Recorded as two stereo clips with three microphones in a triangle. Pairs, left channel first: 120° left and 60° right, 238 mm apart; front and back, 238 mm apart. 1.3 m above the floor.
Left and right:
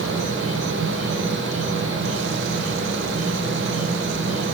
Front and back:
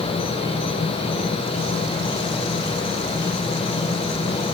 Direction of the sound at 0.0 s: 70° right.